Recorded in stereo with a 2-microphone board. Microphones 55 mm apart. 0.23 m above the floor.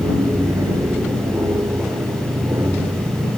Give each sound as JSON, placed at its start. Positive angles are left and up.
{"t": 0.0, "sound": "an aircraft", "side_deg": -65}